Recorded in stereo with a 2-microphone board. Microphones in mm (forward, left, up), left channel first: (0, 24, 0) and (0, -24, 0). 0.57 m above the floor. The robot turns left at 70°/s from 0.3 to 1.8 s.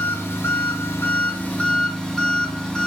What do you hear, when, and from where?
0.0 s an engine running: 120° left, 1.3 m; by 2.9 s 15° left, 1.3 m